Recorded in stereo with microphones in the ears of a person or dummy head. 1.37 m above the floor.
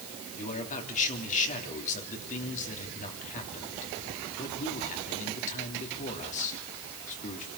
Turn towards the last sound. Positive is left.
turn(degrees=45)  # may be behind; listen again after turning